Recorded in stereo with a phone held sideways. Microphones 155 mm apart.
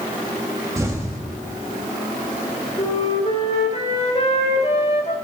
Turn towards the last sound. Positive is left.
turn(degrees=45)  # may be behind; listen again after turning